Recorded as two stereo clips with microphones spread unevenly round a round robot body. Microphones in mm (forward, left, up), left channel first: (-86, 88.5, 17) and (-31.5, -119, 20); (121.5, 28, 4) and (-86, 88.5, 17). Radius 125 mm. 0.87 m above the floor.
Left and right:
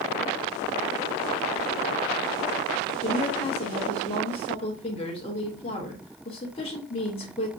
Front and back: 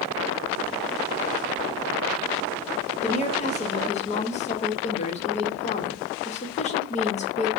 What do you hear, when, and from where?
3.0 s a woman speaking: 40° left, 0.9 m